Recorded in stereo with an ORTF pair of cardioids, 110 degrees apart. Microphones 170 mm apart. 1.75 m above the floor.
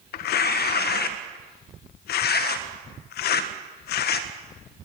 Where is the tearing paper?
65° left, 1.6 m.